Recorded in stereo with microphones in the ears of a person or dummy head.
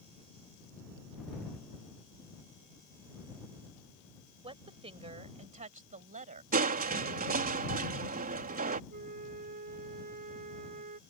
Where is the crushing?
50° right (ahead or behind).